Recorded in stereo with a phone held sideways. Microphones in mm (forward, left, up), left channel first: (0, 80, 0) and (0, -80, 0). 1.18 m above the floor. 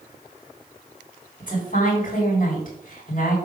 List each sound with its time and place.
1.4 s a woman speaking: 55° left (ahead or behind), 4 m